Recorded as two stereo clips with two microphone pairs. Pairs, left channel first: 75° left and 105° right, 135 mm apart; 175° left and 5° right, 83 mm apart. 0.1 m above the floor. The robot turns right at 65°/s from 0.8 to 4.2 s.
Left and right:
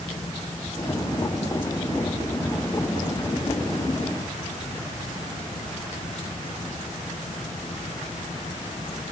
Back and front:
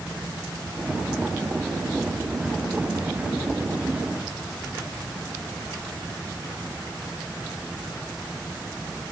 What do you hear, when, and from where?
Only background noise.